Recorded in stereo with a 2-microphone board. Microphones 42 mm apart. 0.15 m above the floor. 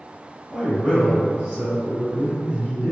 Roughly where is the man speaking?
Right.